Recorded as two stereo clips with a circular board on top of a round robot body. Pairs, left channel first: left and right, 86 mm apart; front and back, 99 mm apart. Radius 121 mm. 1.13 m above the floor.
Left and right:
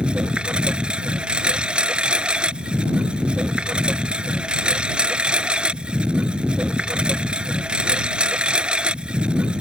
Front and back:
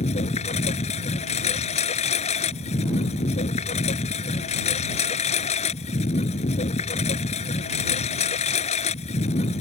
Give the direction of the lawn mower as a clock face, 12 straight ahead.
12 o'clock.